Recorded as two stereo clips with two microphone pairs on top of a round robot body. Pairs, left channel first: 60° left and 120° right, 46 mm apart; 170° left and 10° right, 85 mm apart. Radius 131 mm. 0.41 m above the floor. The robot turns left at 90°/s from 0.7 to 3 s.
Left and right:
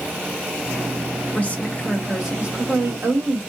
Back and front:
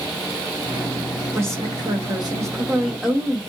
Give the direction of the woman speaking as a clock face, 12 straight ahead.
10 o'clock.